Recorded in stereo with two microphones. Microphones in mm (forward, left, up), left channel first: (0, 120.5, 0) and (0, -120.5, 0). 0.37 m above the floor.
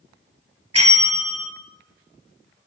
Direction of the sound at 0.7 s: 80° right.